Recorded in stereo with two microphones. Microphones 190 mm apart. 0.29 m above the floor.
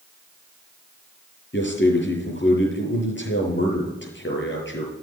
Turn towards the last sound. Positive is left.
turn(degrees=65)  # may be behind; listen again after turning